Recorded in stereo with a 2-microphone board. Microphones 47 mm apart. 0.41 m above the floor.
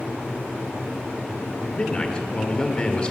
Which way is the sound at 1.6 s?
25° left (ahead or behind).